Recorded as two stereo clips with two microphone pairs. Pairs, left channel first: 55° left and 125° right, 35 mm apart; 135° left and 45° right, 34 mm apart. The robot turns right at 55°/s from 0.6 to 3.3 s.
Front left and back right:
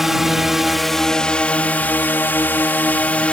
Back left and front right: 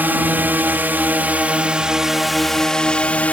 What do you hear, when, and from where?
0.0 s a drone: 50° right; by 3.4 s 100° left